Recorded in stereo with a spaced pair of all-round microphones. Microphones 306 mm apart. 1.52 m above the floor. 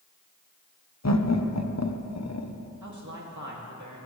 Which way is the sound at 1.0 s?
60° left (ahead or behind).